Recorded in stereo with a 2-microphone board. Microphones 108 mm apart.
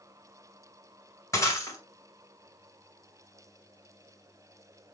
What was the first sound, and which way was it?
Breaking glass, 30° left (ahead or behind).